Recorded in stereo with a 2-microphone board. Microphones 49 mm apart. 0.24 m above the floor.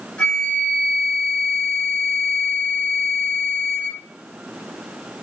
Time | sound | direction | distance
0.2 | a flute | 20° left (ahead or behind) | 1.3 m